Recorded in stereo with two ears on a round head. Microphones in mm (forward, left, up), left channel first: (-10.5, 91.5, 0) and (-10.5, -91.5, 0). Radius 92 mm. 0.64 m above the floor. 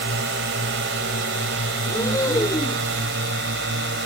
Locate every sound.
0.0 s a drone: 55° right (ahead or behind)
1.9 s breathing: 15° left (ahead or behind)